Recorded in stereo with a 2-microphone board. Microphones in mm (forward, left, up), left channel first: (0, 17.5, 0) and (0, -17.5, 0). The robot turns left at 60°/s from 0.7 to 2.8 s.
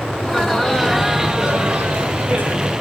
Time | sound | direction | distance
0.2 | laughter | 15° left | 3 m